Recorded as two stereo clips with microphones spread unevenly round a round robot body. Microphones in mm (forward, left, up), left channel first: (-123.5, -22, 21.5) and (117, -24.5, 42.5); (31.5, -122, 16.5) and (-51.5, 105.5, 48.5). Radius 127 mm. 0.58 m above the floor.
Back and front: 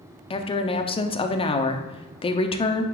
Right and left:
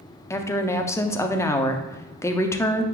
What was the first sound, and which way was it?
A woman speaking, 130° right.